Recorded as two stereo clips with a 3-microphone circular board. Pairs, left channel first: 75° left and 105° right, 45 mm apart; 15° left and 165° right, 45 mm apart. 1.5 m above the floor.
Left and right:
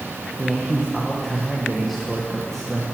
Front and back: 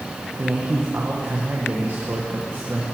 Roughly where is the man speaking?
Behind left.